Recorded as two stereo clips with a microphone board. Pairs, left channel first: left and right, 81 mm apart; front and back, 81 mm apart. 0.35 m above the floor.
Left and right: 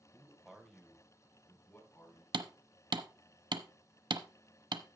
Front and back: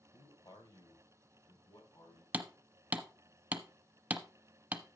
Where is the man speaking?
25° right, 1.4 m; by 2.2 s 30° left, 3.5 m.